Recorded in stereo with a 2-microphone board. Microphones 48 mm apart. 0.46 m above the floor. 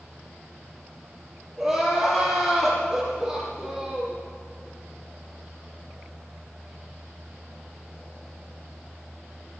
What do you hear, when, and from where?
1.6 s crying: 5° right (ahead or behind), 6 m